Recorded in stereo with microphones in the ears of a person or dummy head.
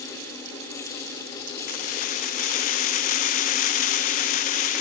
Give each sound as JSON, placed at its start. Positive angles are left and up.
{"t": 1.7, "sound": "keys jangling", "side_deg": 40, "distance_m": 0.8}